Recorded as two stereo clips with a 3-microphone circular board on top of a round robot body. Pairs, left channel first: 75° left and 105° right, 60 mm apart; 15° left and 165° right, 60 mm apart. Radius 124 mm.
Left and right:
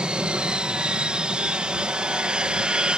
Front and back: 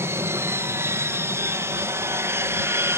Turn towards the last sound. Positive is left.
turn(degrees=-175)